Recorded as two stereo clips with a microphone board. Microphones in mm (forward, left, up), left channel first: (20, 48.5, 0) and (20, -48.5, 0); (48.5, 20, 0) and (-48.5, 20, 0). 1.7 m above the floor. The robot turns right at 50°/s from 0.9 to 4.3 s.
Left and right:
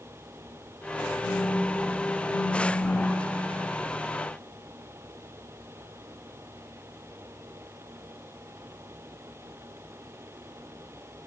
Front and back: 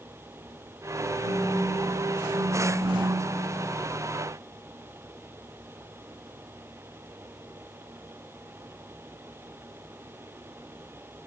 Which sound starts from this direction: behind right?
A phone buzzing, at 1.2 s.